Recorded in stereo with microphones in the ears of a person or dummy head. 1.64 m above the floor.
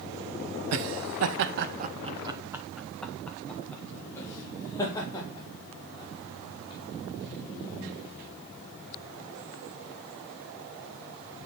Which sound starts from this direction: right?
Laughter, at 0.7 s.